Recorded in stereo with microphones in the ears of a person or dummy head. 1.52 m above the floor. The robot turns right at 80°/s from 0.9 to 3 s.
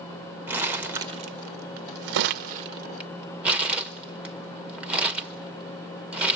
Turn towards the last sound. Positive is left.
turn(degrees=-10)  # may be behind; listen again after turning